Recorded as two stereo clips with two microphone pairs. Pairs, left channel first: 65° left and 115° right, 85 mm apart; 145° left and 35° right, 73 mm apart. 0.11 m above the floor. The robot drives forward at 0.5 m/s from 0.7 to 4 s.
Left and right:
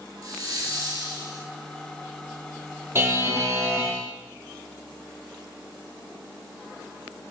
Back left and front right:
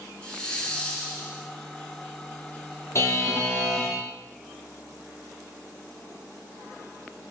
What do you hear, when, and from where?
0.2 s a hiss: 145° right, 0.7 m; by 1.5 s 160° right, 1.0 m
3.0 s a buzzer: 175° right, 0.6 m